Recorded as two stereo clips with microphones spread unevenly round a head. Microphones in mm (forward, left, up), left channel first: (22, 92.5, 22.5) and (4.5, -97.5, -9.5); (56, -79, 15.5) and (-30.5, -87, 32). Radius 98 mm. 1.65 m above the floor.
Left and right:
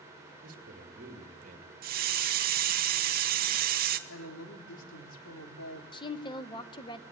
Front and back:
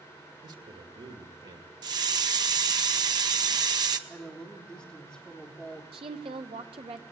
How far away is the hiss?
About 1.3 m.